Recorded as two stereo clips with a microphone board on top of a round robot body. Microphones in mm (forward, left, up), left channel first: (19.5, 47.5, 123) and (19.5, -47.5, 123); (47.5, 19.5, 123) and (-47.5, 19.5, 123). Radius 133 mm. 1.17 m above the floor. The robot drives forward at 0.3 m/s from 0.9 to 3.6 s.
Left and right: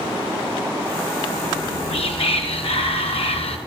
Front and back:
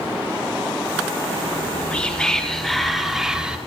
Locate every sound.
1.5 s whispering: 70° left, 1.3 m; by 3.6 s 100° left, 1.3 m